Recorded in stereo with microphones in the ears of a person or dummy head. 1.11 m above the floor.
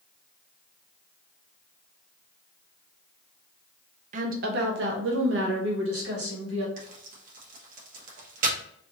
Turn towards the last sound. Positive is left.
turn(degrees=-55)  # may be behind; listen again after turning